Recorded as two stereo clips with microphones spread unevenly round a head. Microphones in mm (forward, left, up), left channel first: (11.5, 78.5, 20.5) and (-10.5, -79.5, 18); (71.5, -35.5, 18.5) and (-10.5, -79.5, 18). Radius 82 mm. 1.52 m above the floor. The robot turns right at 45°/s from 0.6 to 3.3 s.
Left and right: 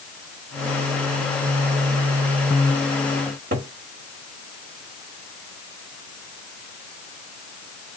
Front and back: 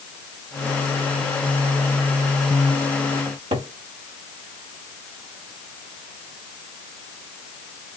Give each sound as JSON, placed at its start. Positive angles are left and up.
{"t": 3.2, "sound": "a cupboard door", "azimuth_deg": -140, "distance_m": 1.6}